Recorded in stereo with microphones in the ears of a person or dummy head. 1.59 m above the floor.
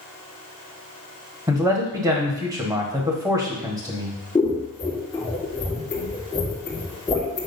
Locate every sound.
1.5 s a man speaking: 15° right (ahead or behind), 1.3 m
4.3 s scissors: 15° left (ahead or behind), 1.3 m